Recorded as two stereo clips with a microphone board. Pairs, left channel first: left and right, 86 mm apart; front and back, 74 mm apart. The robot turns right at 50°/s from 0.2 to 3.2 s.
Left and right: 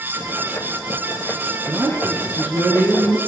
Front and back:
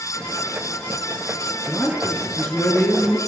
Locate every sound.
1.7 s a man speaking: 105° right, 1.3 m; by 3.2 s 30° right, 1.3 m